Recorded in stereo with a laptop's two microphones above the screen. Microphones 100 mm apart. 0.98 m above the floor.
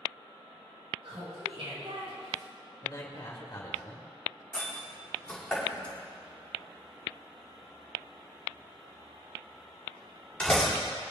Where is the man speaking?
35° left (ahead or behind), 1.8 m.